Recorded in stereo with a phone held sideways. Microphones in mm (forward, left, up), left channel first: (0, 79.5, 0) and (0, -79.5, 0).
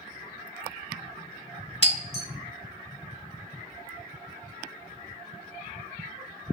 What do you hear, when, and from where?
1.8 s breaking glass: 35° left (ahead or behind), 1.2 m